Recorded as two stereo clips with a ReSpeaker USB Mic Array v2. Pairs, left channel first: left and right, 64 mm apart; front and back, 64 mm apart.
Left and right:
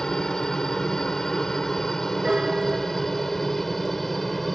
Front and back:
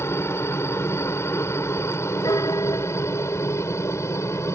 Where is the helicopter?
15° left; by 4.5 s 5° left.